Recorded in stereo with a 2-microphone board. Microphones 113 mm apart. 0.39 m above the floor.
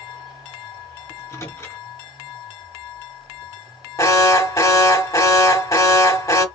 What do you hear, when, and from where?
1.1 s a microwave: 25° left (ahead or behind), 2.5 m
4.0 s an alarm: 30° left (ahead or behind), 1.0 m